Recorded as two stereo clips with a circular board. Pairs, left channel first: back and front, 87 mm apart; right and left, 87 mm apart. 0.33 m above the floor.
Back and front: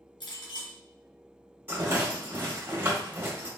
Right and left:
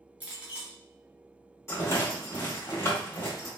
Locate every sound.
0.2 s a clink: 160° left, 2.5 m
1.7 s a rattle: 50° right, 1.8 m